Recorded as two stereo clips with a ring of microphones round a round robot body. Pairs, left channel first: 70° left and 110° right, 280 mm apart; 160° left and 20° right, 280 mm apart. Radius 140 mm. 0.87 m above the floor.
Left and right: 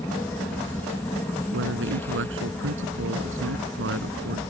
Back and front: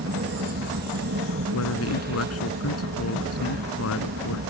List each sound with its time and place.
0.0 s an aircraft: 10° right
1.5 s a man speaking: 160° right